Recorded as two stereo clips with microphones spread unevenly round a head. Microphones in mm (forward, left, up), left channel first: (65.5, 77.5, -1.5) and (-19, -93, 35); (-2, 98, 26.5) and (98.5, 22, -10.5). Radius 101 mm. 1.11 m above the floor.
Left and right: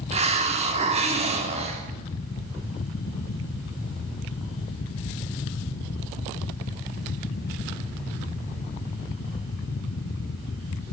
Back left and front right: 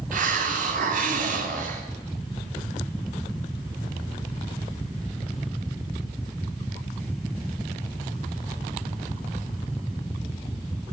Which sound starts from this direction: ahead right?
A hiss, at 0.1 s.